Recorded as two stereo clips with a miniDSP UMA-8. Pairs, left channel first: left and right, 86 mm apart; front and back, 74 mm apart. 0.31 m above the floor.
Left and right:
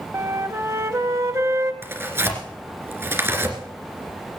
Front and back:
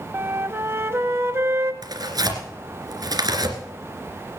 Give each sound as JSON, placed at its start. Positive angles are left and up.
{"t": 0.1, "sound": "a flute", "azimuth_deg": -135, "distance_m": 0.9}
{"t": 1.8, "sound": "tearing paper", "azimuth_deg": -150, "distance_m": 2.5}